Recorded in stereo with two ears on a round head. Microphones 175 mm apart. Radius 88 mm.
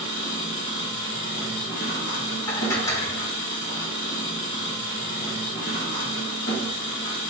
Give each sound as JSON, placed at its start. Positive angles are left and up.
{"t": 0.0, "sound": "an engine running", "side_deg": 65, "distance_m": 1.5}
{"t": 2.5, "sound": "dishes clattering", "side_deg": 15, "distance_m": 0.6}